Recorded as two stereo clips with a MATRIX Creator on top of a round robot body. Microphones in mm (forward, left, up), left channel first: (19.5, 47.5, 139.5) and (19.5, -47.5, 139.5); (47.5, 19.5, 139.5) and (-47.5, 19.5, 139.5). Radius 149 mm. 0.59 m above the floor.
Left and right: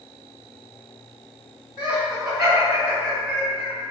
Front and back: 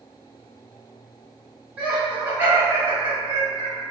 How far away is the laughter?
About 1.5 m.